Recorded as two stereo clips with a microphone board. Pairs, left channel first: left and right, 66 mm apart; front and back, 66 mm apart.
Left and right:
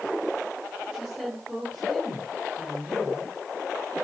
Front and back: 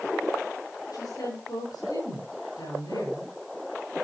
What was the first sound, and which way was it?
A woman speaking, 10° right.